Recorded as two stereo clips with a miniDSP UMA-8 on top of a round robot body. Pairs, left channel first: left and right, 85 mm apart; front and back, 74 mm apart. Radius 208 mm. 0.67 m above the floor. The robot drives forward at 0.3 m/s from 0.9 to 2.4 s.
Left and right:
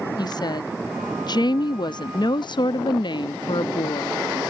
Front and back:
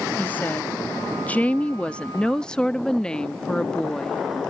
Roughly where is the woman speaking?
Ahead left.